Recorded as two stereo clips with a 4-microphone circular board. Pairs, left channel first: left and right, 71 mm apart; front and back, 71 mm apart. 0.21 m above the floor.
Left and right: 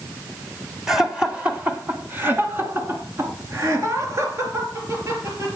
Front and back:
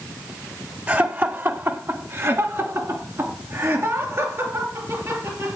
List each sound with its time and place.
0.9 s laughter: 170° right, 1.1 m; by 5.6 s 135° right, 4 m